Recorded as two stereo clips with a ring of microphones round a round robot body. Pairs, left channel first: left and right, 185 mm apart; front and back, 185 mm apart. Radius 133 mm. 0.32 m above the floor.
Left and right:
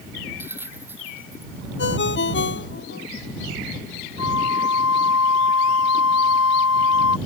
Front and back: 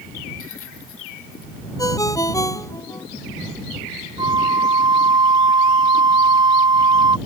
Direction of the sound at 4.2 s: 115° left.